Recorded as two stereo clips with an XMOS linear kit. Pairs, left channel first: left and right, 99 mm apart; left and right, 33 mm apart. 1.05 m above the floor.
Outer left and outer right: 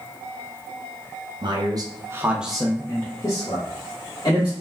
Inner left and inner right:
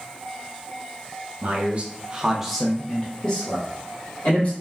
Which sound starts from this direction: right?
A man speaking, at 1.4 s.